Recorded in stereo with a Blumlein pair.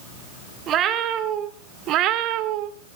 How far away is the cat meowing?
About 2.5 m.